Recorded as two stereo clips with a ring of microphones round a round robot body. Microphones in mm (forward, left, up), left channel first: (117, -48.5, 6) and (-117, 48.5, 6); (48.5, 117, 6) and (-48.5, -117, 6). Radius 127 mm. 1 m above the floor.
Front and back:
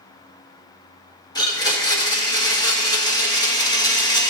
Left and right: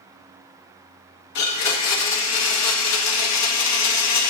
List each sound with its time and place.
1.4 s a blender: 50° left, 1.7 m